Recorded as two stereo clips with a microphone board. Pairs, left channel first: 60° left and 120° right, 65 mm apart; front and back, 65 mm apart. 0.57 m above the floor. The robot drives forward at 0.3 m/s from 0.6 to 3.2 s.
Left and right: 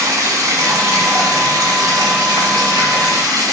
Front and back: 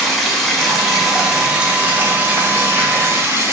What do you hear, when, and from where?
0.0 s running water: 85° right, 1.0 m; by 3.5 s 125° right, 1.2 m